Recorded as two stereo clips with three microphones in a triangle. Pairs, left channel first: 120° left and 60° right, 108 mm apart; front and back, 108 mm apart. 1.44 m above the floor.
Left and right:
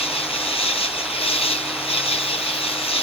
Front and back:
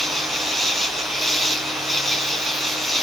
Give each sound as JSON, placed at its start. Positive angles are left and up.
{"t": 0.0, "sound": "an insect", "azimuth_deg": 90}